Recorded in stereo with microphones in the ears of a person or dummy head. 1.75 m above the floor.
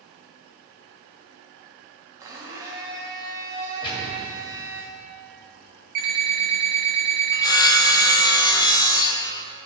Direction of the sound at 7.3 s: 20° left (ahead or behind).